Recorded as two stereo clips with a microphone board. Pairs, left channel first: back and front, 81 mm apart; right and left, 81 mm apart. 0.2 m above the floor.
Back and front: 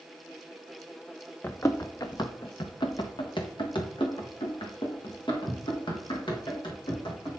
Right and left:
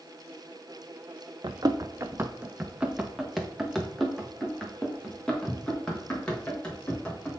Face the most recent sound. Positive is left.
turn(degrees=-165)